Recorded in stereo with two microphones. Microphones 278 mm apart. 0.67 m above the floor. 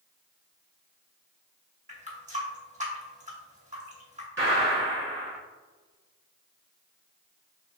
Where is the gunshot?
45° right (ahead or behind), 1.3 m.